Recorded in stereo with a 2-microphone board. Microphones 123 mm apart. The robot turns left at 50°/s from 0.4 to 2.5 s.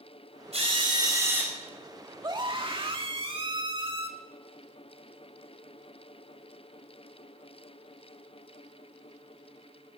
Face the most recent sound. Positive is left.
turn(degrees=-45)  # may be behind; listen again after turning